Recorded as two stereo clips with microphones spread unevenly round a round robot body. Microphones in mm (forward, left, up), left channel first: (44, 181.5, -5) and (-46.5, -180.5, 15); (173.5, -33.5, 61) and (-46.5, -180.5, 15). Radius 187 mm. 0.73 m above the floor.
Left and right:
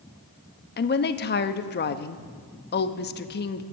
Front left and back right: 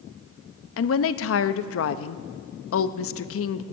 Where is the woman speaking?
30° left, 0.7 m.